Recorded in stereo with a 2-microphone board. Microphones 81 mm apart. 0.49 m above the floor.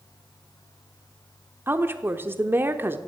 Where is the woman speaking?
25° right (ahead or behind), 0.9 m.